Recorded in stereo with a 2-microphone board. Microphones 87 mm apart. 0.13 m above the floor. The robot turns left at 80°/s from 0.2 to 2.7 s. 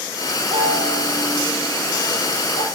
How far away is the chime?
About 4.5 m.